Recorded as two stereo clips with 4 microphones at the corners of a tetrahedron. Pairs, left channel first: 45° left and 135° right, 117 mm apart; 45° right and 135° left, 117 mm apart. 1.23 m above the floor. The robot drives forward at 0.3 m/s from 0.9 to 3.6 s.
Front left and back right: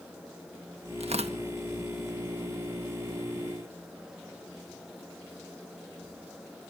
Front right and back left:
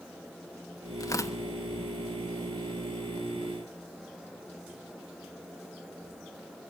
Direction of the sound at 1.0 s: 105° right.